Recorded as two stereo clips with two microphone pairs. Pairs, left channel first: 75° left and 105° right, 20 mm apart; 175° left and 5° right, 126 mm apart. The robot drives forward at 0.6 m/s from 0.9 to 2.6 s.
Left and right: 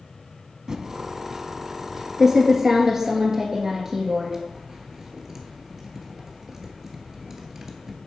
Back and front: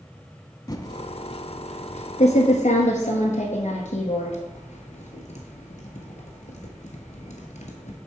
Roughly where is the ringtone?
No ringtone in this recording.